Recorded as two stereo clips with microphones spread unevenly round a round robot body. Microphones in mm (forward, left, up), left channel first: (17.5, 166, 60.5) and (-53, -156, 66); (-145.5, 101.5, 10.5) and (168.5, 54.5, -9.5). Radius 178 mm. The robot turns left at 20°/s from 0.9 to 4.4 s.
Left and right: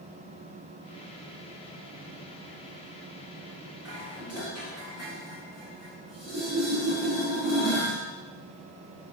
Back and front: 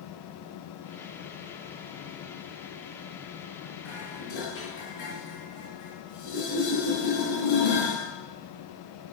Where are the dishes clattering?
Straight behind, 4.5 m; by 8.0 s 170° left, 4.5 m.